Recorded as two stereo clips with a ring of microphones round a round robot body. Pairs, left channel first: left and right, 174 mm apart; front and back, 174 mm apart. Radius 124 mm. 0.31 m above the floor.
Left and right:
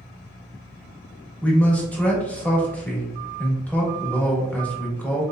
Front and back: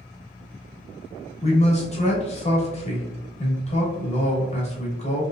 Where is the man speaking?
15° left, 1.1 m.